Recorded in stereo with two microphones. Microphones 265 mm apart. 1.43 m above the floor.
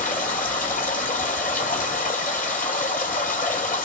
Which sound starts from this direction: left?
Running water, at 0.0 s.